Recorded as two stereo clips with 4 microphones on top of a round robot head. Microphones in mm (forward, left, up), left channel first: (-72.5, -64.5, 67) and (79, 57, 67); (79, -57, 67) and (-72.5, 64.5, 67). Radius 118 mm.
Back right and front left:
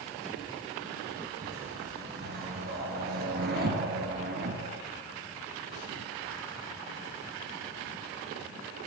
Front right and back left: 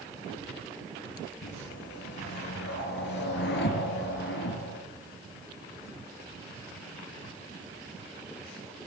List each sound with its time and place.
1.4 s a whoosh: straight ahead, 6 m